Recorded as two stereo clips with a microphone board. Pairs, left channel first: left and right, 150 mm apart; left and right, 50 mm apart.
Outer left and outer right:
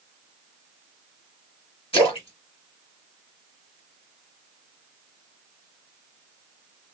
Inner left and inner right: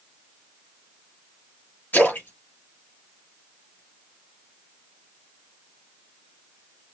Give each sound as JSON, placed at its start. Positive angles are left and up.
{"t": 1.9, "sound": "a splash", "side_deg": 35, "distance_m": 2.0}